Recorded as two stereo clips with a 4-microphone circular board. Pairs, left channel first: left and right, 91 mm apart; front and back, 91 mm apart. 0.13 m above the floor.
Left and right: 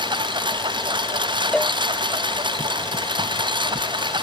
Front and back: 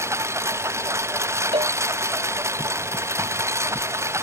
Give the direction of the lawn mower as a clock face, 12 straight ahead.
4 o'clock.